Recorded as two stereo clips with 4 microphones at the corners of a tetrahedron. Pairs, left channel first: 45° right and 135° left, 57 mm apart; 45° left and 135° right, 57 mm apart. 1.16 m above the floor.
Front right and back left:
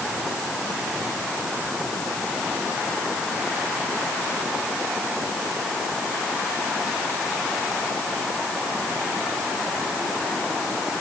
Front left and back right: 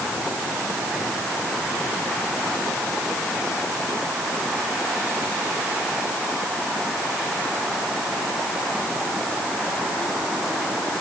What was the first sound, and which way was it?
Only background noise.